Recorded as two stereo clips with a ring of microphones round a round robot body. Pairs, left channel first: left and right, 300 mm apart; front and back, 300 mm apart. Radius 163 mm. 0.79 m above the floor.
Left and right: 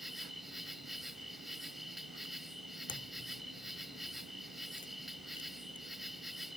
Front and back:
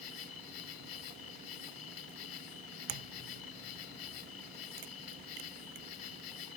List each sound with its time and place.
0.0 s an insect: straight ahead
2.9 s a crack: 165° left